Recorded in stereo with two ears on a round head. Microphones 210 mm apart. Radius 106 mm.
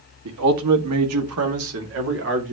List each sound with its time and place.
0.2 s a man speaking: 75° right (ahead or behind), 1.9 m; by 2.5 s 55° right (ahead or behind), 2.5 m